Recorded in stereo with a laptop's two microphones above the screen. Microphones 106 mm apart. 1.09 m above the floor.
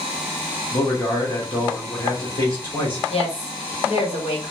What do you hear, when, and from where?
0.7 s a man speaking: 45° left (ahead or behind), 1.2 m
3.1 s a woman speaking: 70° left (ahead or behind), 1.0 m